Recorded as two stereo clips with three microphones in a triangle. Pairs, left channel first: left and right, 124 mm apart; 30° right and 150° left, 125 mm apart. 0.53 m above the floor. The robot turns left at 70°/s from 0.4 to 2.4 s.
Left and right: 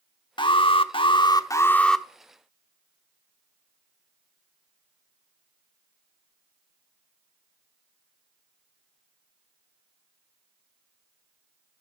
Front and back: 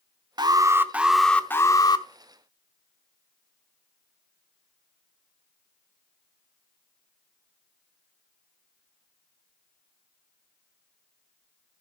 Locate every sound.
0.4 s an alarm: 115° left, 0.9 m; by 2.1 s straight ahead, 0.9 m